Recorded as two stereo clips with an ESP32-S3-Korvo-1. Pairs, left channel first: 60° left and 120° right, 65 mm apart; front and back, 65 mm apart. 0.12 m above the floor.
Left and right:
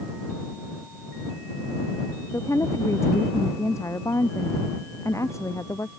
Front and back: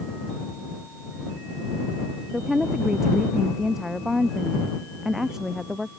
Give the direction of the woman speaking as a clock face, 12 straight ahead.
9 o'clock.